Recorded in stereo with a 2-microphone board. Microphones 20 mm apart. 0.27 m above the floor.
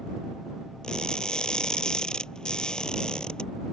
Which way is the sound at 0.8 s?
45° left (ahead or behind).